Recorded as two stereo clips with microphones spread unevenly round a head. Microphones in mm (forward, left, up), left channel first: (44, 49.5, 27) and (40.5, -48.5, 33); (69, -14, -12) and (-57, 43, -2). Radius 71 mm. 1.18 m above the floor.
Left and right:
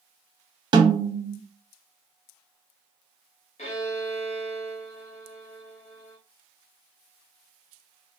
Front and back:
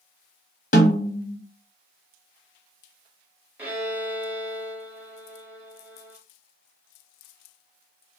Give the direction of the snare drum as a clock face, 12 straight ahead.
2 o'clock.